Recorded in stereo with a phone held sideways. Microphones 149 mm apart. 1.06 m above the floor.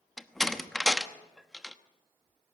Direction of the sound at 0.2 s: Centre (ahead or behind).